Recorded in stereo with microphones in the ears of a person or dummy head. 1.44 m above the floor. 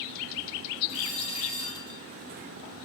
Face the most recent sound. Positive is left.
turn(degrees=-15)  # may be behind; listen again after turning